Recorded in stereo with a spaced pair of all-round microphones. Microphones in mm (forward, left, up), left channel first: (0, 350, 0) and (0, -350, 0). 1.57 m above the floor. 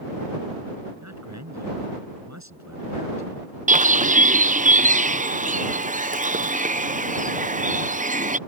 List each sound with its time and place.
1.0 s a man speaking: 25° right (ahead or behind)
3.7 s a bird: 10° right (ahead or behind)